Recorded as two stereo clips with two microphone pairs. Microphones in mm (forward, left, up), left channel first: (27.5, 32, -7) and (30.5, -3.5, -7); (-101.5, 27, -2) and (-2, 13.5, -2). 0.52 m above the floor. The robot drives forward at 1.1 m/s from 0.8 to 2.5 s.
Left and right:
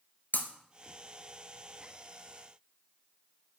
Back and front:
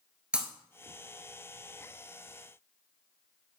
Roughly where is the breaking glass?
Left.